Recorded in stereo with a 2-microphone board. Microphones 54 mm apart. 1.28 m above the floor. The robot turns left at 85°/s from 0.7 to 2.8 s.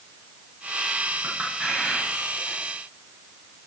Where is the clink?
35° right (ahead or behind), 7 m; by 2.6 s 80° left, 7 m.